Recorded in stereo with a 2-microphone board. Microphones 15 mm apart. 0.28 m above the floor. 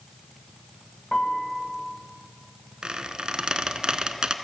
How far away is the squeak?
About 0.6 m.